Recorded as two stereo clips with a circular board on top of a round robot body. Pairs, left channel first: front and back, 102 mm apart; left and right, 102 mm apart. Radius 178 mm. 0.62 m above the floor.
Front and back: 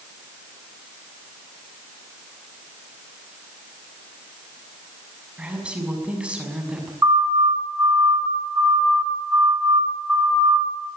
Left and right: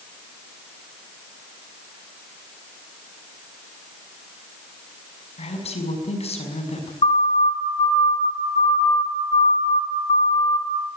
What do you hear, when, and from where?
5.4 s a woman speaking: 100° left, 6 m
7.0 s a siren: 115° left, 7.5 m; by 10.9 s 95° left, 4.5 m